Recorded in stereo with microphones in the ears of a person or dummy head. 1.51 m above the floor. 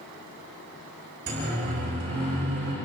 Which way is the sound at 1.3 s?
50° right (ahead or behind).